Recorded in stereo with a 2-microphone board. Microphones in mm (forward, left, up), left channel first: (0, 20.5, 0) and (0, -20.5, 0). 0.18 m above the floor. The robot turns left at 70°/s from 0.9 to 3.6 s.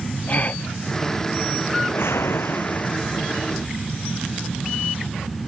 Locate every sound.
0.3 s a gasp: 35° left (ahead or behind)
1.8 s a whoosh: 120° left; by 3.0 s 35° left